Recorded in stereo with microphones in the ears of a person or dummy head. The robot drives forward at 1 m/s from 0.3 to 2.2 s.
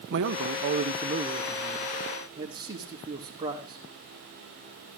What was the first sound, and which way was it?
A man speaking, 60° right (ahead or behind).